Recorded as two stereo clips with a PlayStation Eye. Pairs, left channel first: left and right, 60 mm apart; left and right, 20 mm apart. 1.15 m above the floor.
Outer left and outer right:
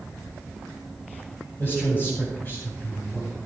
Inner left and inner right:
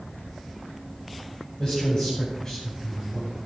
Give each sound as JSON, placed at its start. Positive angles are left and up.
{"t": 1.6, "sound": "a man speaking", "side_deg": 40, "distance_m": 7.5}